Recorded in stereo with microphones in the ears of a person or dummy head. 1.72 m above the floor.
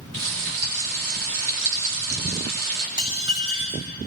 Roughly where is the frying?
Right.